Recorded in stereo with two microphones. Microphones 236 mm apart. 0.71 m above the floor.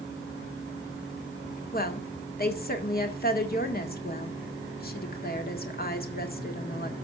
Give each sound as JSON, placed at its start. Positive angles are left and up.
{"t": 1.7, "sound": "a woman speaking", "side_deg": 45, "distance_m": 1.7}